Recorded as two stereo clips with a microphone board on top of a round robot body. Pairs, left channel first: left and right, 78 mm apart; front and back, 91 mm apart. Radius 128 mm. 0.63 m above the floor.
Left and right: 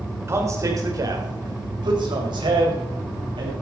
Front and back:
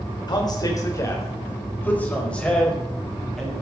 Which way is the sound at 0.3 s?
35° right.